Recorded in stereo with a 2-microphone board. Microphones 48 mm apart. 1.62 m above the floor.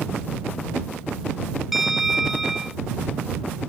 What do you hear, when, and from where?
1.7 s a bell: 5° right (ahead or behind)